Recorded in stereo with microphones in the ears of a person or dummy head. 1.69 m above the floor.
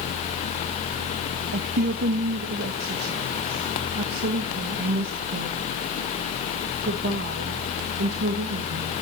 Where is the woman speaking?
60° right (ahead or behind), 1.7 m.